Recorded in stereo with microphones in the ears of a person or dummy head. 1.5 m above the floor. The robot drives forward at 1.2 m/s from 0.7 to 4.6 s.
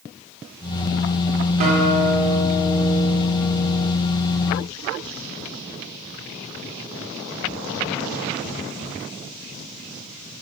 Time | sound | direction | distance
1.6 | a guitar | 50° right (ahead or behind) | 1.8 m